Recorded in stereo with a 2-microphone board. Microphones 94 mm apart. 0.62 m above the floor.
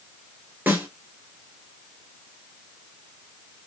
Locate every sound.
0.7 s a snare drum: 25° right (ahead or behind), 2.5 m